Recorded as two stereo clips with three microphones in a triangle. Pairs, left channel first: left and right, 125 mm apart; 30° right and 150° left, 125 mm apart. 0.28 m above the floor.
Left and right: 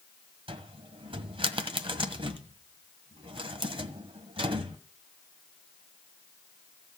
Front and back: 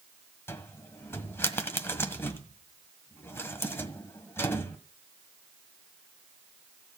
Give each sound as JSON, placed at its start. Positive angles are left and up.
{"t": 0.5, "sound": "a cupboard door", "azimuth_deg": -95, "distance_m": 1.6}